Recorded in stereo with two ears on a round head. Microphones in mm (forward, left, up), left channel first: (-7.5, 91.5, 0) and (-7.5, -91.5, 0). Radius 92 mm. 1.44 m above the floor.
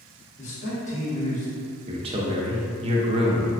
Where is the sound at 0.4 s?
35° left (ahead or behind), 1.3 m.